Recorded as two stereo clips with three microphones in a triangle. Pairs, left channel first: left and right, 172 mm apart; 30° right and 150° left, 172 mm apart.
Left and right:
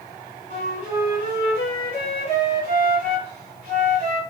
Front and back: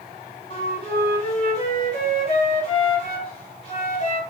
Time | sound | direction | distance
0.5 | a flute | 70° right | 2.5 m